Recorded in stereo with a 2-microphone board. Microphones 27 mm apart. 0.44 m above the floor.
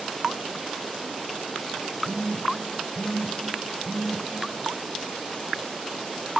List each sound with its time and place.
2.0 s a phone buzzing: 60° left (ahead or behind), 1.9 m